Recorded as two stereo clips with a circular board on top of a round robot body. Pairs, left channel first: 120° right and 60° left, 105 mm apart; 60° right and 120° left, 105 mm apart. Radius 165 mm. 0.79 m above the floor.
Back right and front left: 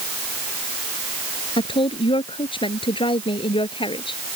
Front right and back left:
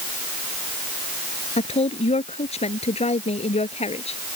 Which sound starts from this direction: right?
A woman speaking, at 1.6 s.